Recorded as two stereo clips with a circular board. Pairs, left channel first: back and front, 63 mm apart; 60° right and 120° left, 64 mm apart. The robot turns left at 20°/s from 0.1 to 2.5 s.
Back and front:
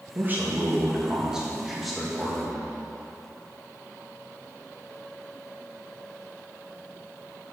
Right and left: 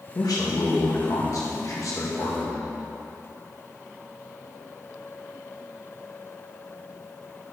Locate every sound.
0.1 s a man speaking: 55° right, 1.5 m; by 2.7 s 100° right, 1.5 m